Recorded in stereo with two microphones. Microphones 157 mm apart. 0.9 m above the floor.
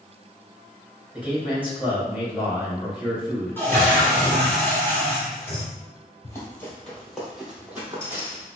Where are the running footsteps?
20° left (ahead or behind), 1.4 m; by 8.5 s 20° right (ahead or behind), 1.9 m.